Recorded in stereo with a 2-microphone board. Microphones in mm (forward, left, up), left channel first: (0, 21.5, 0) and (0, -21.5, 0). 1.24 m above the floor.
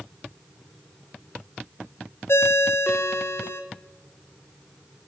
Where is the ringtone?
65° left (ahead or behind), 0.6 m.